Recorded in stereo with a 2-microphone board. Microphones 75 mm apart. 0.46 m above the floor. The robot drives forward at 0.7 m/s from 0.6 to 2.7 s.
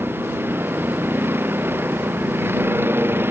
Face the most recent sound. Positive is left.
turn(degrees=-30)  # may be behind; listen again after turning